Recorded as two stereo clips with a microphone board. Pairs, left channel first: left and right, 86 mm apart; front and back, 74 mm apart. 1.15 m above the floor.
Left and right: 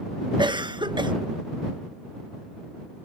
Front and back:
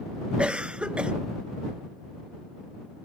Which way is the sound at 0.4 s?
105° right.